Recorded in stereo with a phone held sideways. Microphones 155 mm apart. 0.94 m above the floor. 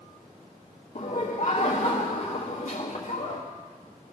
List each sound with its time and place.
0.9 s laughter: 65° left (ahead or behind), 1.9 m